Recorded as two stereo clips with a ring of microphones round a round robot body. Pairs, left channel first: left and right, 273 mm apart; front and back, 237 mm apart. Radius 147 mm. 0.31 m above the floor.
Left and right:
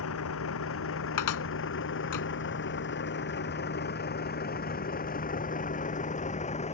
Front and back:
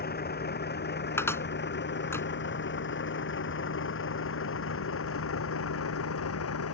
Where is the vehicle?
50° left; by 6.8 s 25° left.